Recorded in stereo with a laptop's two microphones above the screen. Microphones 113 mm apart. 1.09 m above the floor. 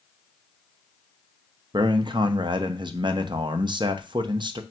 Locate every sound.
1.7 s a man speaking: 45° right (ahead or behind), 0.6 m